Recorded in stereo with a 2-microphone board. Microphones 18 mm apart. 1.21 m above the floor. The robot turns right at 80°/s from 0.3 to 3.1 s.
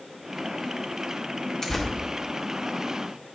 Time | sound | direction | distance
1.6 | tearing paper | 30° left (ahead or behind) | 1.3 m